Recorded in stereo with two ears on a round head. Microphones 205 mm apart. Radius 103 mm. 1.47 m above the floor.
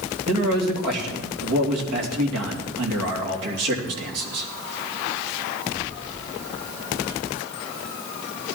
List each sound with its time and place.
0.3 s a man speaking: 80° right, 3 m